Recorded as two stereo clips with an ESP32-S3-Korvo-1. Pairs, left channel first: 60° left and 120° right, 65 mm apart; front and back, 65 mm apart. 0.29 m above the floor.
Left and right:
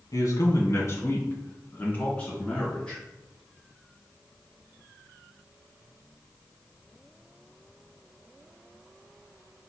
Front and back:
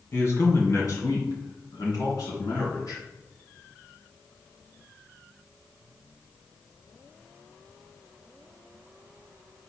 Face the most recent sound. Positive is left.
turn(degrees=-15)